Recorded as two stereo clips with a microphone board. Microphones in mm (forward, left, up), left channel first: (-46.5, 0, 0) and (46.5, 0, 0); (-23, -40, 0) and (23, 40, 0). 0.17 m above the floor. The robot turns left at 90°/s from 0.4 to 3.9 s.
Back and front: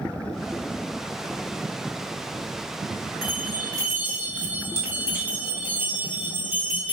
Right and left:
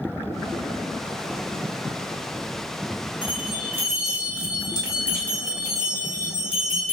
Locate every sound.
3.2 s a bell: 5° right, 2 m; by 6.9 s 65° right, 2 m